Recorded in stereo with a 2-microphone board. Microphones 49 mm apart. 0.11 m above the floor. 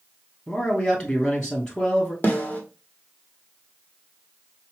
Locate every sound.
0.5 s a man speaking: 15° left (ahead or behind), 2 m
2.2 s a snare drum: 35° left (ahead or behind), 1.5 m